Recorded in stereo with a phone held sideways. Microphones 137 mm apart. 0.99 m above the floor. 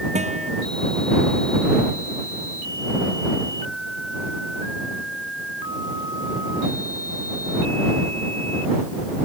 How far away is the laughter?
I don't hear laughter.